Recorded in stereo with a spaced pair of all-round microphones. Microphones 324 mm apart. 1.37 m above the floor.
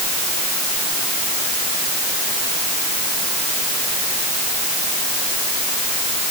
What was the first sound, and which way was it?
Only background noise.